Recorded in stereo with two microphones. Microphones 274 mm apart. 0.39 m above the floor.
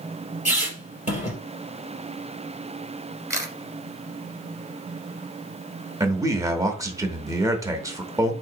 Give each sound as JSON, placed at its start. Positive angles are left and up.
{"t": 0.5, "sound": "a squeak", "side_deg": 25, "distance_m": 3.0}
{"t": 3.3, "sound": "a camera shutter", "side_deg": -10, "distance_m": 1.2}
{"t": 6.0, "sound": "a man speaking", "side_deg": -10, "distance_m": 0.9}